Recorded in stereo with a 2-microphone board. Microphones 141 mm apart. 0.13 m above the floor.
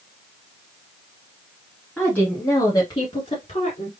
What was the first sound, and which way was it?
A woman speaking, 5° left (ahead or behind).